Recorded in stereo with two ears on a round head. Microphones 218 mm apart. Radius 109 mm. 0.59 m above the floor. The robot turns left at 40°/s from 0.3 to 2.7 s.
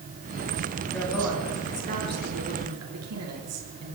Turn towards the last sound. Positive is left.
turn(degrees=-65)